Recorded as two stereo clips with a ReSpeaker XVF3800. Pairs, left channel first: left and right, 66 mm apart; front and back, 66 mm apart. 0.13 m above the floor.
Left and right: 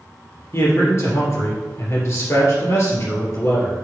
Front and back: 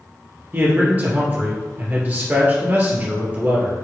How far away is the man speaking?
About 2.5 m.